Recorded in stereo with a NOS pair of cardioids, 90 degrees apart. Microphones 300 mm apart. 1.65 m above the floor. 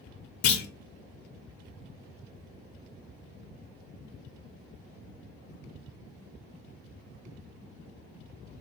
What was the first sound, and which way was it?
A clunk, 65° left.